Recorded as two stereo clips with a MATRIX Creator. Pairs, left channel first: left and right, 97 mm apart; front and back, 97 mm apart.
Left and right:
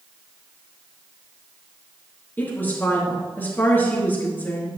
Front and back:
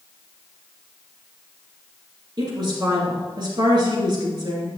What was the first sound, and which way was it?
A woman speaking, 155° left.